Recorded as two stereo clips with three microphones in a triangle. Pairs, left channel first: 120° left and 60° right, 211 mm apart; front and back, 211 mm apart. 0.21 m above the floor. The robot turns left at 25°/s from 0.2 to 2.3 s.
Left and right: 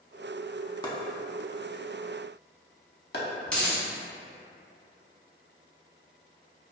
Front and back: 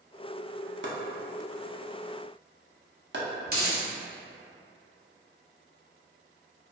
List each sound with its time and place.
0.8 s chopping: 170° right, 0.5 m; by 3.2 s 155° left, 0.5 m
3.5 s a dropped coin: 155° right, 0.7 m